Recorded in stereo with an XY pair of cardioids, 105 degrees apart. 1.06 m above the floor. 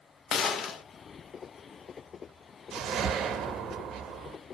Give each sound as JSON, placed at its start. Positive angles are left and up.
{"t": 0.3, "sound": "a gunshot", "azimuth_deg": 60, "distance_m": 0.5}
{"t": 2.7, "sound": "a whoosh", "azimuth_deg": -60, "distance_m": 0.7}